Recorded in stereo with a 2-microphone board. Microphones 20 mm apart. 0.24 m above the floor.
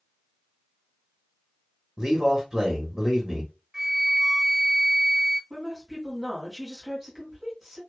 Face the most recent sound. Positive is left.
turn(degrees=-20)  # may be behind; listen again after turning